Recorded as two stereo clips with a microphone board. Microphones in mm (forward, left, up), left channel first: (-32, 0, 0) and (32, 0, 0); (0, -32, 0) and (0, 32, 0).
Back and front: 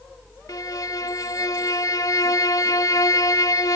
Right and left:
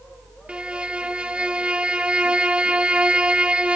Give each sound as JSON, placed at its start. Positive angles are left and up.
{"t": 0.5, "sound": "a violin", "azimuth_deg": 165, "distance_m": 0.5}